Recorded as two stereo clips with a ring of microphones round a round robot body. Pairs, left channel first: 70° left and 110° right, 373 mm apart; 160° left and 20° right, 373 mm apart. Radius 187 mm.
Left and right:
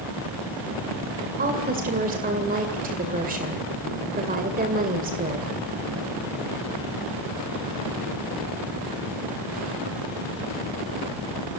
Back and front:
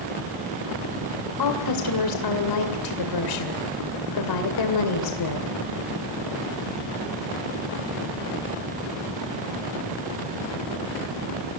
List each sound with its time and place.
1.4 s a woman speaking: straight behind, 2 m